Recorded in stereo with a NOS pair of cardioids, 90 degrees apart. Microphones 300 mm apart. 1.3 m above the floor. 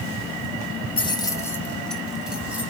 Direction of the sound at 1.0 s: 15° left.